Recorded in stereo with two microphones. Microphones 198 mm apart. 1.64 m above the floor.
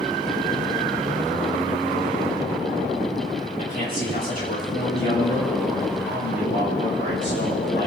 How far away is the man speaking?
About 4.5 m.